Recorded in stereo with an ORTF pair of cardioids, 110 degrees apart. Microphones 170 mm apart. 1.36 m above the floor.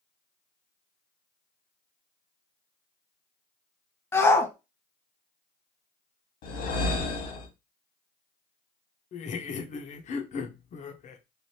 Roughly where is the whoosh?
Left.